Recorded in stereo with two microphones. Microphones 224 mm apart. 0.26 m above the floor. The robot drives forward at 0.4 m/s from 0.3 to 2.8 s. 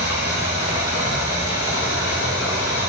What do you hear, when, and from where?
0.0 s running water: 75° left (ahead or behind), 5.5 m; by 2.9 s 65° left (ahead or behind), 5.5 m